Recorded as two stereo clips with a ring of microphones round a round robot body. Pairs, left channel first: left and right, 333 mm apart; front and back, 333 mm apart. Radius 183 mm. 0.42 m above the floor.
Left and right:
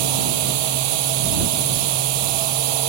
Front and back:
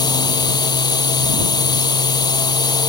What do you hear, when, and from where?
0.0 s a drone: 80° right